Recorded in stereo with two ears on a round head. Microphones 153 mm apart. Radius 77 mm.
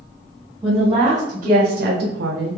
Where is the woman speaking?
15° right (ahead or behind), 1.3 m; by 2.6 s 75° right (ahead or behind), 0.6 m.